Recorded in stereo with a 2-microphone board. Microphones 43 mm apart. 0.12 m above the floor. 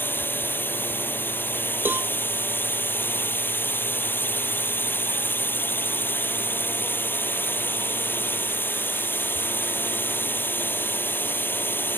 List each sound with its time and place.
0.0 s a drone: 55° left (ahead or behind)
1.9 s a cowbell: 60° right (ahead or behind)